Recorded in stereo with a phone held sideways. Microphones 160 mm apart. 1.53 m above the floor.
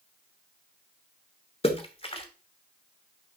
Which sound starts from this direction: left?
A splash, at 1.6 s.